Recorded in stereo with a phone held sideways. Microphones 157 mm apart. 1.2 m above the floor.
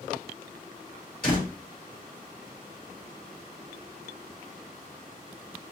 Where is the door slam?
65° left (ahead or behind), 2 m.